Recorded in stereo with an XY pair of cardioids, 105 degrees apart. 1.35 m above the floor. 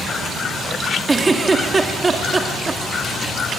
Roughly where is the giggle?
Ahead right.